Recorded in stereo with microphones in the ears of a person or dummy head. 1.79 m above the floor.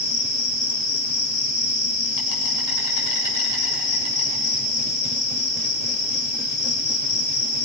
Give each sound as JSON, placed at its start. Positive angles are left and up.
{"t": 0.0, "sound": "an insect", "side_deg": 70, "distance_m": 7.5}